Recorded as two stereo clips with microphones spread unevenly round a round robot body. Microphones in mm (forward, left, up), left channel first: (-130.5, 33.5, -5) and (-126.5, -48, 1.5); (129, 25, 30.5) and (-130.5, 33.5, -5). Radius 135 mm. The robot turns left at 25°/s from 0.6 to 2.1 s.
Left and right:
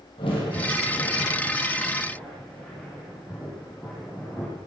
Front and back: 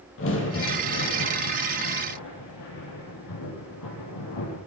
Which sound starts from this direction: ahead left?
A crack, at 0.2 s.